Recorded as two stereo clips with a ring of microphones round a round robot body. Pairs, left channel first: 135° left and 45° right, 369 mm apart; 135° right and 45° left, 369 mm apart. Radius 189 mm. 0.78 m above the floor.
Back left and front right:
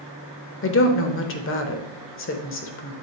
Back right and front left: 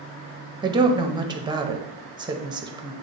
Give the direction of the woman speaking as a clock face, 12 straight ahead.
8 o'clock.